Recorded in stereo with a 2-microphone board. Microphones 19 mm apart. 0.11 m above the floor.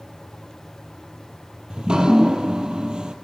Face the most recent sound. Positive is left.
turn(degrees=-45)  # may be behind; listen again after turning